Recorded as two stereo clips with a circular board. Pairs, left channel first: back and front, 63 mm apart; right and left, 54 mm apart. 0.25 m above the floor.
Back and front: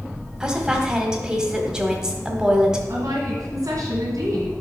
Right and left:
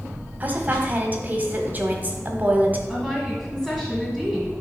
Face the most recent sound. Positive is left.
turn(degrees=-5)